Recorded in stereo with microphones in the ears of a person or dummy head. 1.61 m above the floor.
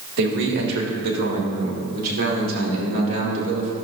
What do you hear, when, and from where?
0.2 s a man speaking: 65° right (ahead or behind), 1.7 m; by 3.7 s 45° right (ahead or behind), 3 m